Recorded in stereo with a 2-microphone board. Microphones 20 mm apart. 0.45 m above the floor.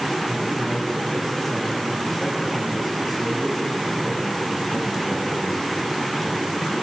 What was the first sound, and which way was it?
A man speaking, 10° left (ahead or behind).